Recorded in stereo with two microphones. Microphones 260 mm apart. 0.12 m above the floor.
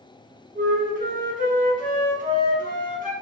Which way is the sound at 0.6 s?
30° right (ahead or behind).